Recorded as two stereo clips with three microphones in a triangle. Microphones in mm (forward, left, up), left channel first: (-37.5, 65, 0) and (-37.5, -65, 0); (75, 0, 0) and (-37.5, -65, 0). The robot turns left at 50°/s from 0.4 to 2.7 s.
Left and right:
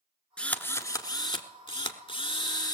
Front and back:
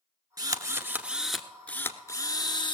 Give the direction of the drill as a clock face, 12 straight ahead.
6 o'clock.